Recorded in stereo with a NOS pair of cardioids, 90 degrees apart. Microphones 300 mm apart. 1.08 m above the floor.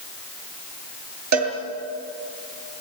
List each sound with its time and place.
1.3 s a cowbell: 70° right, 6.5 m